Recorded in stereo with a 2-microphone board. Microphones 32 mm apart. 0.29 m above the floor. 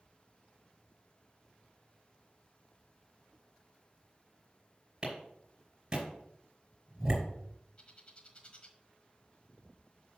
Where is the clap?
25° right (ahead or behind), 5 m.